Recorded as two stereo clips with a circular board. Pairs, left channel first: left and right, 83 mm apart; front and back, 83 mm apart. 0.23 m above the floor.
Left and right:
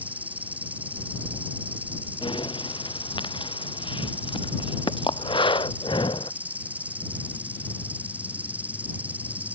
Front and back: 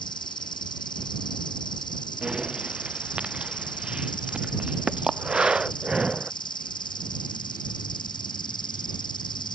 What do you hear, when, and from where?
0.0 s an insect: 20° right
2.2 s breathing: 100° left